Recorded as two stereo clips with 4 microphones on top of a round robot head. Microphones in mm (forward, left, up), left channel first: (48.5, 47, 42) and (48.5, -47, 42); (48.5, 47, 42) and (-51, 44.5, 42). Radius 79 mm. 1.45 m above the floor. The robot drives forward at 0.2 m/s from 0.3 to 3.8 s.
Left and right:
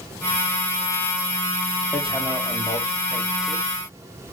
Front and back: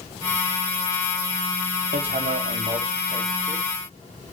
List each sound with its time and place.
1.9 s hammering: 175° right, 0.7 m; by 4.3 s straight behind, 1.1 m